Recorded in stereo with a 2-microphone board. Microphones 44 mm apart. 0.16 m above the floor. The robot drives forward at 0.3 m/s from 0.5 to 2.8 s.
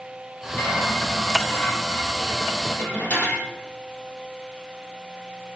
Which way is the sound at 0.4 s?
45° left (ahead or behind).